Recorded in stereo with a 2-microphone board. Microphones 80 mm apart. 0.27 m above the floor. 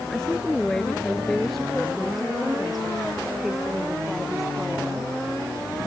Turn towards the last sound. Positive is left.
turn(degrees=-5)  # may be behind; listen again after turning